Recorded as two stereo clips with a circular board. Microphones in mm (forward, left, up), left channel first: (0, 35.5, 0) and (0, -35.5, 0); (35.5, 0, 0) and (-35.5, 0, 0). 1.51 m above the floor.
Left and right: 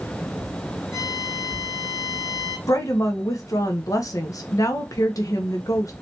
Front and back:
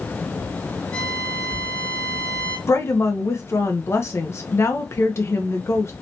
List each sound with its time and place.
0.9 s a violin: 70° left, 2 m
2.7 s a woman speaking: 50° left, 1.0 m